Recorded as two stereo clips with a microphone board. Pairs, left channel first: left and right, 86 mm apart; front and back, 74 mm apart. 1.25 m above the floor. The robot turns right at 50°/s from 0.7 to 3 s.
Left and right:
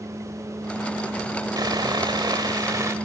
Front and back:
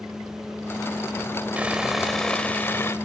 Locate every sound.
1.6 s sawing: 115° right, 1.6 m; by 2.9 s 45° right, 1.6 m